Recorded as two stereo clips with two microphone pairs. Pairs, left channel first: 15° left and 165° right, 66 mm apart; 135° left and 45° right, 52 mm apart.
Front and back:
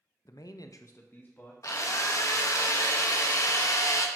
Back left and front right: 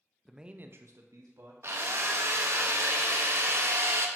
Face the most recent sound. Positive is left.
turn(degrees=-20)